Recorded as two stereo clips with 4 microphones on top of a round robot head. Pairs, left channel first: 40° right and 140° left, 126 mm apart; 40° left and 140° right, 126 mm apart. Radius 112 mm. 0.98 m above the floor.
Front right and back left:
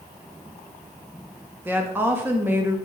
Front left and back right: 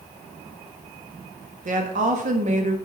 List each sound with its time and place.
1.6 s a woman speaking: 150° right, 1.5 m